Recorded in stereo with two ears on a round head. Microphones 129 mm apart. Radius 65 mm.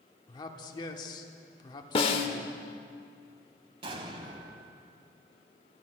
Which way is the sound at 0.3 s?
30° left (ahead or behind).